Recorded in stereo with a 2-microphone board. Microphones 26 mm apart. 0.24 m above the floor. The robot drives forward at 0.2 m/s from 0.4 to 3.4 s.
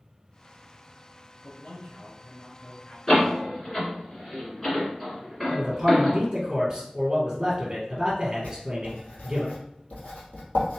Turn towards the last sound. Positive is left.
turn(degrees=60)  # may be behind; listen again after turning